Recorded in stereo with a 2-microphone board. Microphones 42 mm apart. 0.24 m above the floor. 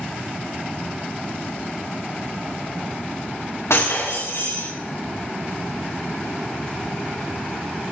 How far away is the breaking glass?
About 4 m.